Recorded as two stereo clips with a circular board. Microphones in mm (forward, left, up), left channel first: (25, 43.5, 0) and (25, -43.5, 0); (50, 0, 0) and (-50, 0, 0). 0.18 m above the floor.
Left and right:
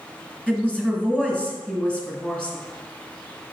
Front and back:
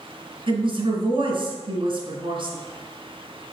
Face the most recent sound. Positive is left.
turn(degrees=165)